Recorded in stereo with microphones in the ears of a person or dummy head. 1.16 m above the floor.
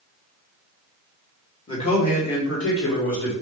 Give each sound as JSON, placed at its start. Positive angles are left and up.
{"t": 1.7, "sound": "a man speaking", "side_deg": 35, "distance_m": 1.5}